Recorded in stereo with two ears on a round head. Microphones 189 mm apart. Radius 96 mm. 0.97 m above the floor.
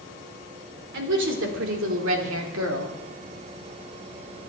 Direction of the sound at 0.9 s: 65° right (ahead or behind).